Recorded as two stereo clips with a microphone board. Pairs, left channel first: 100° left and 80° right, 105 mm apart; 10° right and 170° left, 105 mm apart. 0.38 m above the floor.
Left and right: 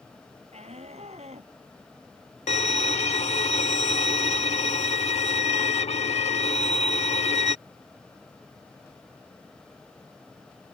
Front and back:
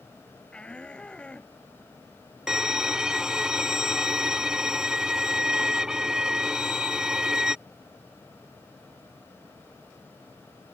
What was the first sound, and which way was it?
A shout, 90° right.